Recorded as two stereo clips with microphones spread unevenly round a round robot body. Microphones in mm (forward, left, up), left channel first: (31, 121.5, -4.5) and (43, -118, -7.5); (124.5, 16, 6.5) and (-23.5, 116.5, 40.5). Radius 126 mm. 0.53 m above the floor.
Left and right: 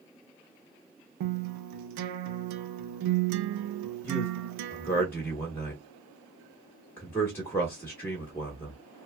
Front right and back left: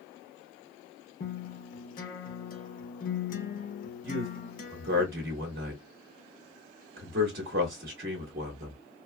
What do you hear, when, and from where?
1.2 s a guitar: 80° right, 0.5 m
4.0 s a man speaking: 175° left, 0.8 m